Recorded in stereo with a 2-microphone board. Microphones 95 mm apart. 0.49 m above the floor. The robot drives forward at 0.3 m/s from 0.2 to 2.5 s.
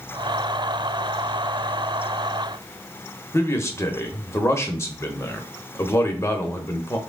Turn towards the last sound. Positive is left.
turn(degrees=30)  # may be behind; listen again after turning